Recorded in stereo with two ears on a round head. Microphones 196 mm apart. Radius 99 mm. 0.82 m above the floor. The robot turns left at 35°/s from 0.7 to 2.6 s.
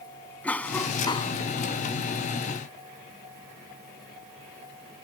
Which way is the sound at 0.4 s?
5° left (ahead or behind).